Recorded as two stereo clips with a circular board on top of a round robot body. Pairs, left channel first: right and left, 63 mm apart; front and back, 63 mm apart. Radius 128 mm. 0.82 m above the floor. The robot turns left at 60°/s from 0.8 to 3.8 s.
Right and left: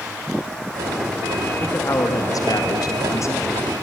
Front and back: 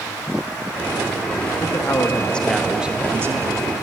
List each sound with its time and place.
1.6 s a man speaking: 30° right, 1.4 m; by 3.7 s 155° right, 1.4 m